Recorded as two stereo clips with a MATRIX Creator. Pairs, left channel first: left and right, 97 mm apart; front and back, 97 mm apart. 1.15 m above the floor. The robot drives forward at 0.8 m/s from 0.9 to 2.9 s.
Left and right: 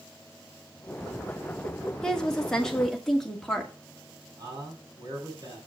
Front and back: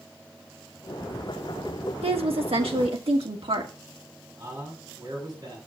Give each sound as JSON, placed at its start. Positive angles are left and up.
{"t": 2.0, "sound": "a woman speaking", "azimuth_deg": 175, "distance_m": 1.7}
{"t": 4.4, "sound": "a man speaking", "azimuth_deg": -130, "distance_m": 6.5}